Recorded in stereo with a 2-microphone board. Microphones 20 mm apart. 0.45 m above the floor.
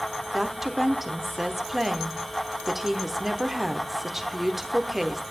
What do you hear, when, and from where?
0.3 s a woman speaking: 15° right (ahead or behind), 1.1 m